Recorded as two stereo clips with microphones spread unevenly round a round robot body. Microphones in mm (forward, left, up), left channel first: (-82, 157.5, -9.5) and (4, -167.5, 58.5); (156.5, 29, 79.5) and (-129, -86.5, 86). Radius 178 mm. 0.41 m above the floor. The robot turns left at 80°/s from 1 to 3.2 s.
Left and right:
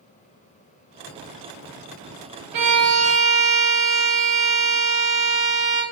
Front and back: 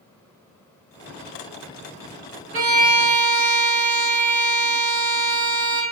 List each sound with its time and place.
2.5 s a violin: 105° right, 0.8 m; by 5.8 s 160° right, 0.8 m